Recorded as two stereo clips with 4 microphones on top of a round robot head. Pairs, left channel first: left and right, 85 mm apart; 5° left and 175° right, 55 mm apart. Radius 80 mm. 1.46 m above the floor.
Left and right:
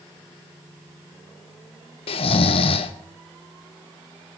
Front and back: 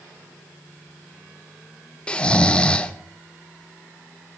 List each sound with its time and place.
2.1 s snoring: 75° left, 0.7 m